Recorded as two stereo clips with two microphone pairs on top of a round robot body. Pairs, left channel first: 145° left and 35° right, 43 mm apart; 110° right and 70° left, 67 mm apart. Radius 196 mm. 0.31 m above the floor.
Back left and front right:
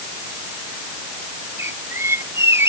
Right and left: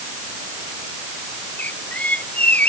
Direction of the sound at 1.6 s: 40° right.